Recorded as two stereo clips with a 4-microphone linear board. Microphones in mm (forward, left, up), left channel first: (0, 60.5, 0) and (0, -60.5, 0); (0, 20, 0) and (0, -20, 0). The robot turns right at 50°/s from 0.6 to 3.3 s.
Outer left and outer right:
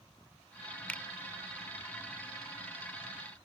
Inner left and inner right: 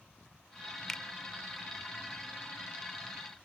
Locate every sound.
0.9 s a finger snap: 10° left (ahead or behind)